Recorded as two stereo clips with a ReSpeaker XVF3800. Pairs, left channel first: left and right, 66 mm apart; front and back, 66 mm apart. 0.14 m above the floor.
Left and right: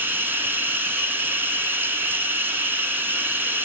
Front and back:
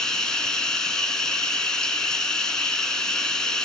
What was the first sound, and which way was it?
Running water, 70° right.